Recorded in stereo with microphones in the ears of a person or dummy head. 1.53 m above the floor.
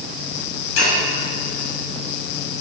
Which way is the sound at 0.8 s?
85° left.